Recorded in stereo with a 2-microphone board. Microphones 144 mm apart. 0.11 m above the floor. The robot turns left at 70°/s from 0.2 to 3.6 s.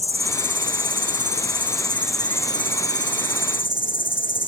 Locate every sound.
0.0 s an insect: 45° right; by 4.5 s 75° left